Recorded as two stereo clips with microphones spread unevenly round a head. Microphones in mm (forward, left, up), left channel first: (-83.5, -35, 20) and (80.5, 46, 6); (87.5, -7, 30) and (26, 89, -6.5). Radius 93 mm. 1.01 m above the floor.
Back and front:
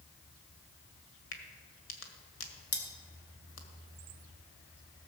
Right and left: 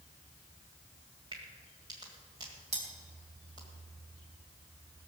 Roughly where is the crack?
Behind.